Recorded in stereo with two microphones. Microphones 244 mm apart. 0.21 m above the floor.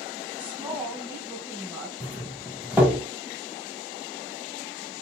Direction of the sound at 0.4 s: 5° right (ahead or behind).